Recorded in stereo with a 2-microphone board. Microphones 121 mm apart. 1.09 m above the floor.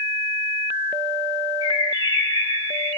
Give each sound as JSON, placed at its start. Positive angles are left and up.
{"t": 1.6, "sound": "a bird", "side_deg": 30, "distance_m": 0.9}